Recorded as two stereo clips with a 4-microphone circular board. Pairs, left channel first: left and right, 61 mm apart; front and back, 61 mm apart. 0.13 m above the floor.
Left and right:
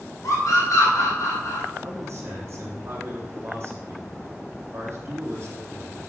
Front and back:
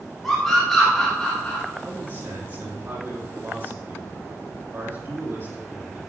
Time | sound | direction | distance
0.2 | a scream | 85° left | 5 m
1.8 | a man speaking | 135° right | 4 m